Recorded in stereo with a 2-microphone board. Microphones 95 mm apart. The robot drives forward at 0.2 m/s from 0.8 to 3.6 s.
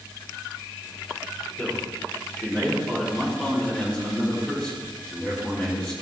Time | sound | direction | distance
1.6 | a man speaking | 15° left (ahead or behind) | 4 m